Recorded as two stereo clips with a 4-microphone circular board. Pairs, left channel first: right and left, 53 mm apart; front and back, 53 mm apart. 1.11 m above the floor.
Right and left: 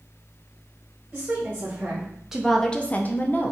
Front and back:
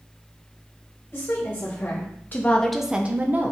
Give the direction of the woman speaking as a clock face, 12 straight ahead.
11 o'clock.